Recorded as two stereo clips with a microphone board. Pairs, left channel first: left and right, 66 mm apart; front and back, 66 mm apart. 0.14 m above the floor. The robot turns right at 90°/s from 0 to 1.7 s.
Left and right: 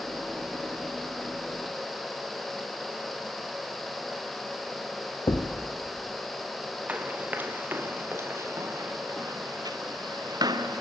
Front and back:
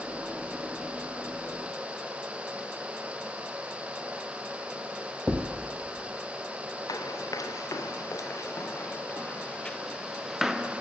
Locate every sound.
5.3 s a thud: 100° left, 1.7 m
6.9 s running footsteps: 20° right, 2.5 m; by 10.8 s 105° right, 1.7 m